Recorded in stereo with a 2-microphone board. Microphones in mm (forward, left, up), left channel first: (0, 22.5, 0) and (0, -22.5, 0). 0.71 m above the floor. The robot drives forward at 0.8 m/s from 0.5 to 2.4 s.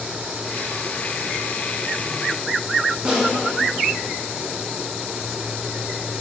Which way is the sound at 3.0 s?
20° right (ahead or behind).